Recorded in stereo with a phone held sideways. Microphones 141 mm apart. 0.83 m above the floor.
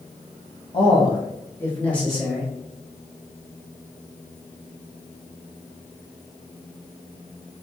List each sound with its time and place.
0.7 s a man speaking: 35° left (ahead or behind), 1.0 m; by 2.5 s 5° right (ahead or behind), 1.0 m